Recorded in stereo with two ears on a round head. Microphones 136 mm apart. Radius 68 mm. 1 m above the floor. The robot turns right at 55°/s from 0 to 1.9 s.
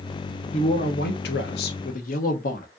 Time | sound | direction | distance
0.5 | a man speaking | 40° left | 1.4 m